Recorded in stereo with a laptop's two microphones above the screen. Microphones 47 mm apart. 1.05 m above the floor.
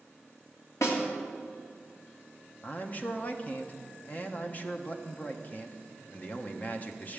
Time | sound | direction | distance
0.8 | a snare drum | 80° left | 2 m
2.6 | a man speaking | 35° left (ahead or behind) | 0.8 m